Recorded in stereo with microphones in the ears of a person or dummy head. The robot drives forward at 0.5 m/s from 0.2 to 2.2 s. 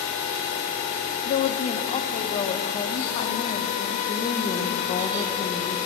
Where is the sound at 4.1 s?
25° left (ahead or behind), 1.0 m.